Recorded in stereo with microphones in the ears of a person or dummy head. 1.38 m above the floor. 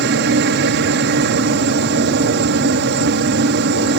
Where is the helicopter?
55° right (ahead or behind).